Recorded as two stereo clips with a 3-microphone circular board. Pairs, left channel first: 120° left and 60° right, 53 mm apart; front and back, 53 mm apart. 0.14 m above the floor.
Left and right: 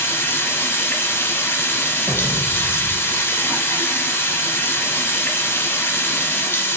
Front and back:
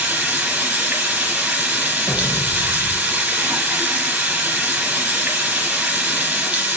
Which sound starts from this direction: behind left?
Running water, at 0.0 s.